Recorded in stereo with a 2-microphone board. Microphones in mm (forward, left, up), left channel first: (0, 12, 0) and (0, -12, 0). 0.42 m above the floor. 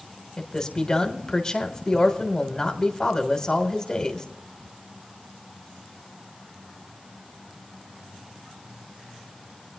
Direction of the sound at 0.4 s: 25° left (ahead or behind).